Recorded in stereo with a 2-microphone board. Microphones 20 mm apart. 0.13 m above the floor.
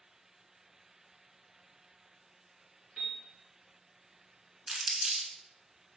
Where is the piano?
25° right (ahead or behind), 1.8 m.